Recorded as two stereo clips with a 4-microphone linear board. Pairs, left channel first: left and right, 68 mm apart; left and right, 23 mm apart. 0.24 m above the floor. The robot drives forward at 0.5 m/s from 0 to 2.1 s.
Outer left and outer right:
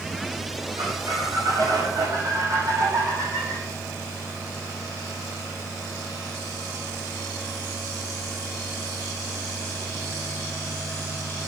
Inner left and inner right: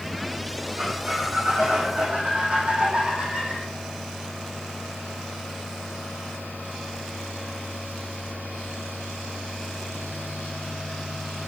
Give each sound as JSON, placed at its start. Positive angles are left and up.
{"t": 0.8, "sound": "a squeak", "side_deg": -65, "distance_m": 7.0}